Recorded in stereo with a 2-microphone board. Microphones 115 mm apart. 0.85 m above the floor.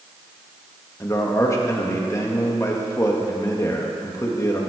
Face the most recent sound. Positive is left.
turn(degrees=25)  # may be behind; listen again after turning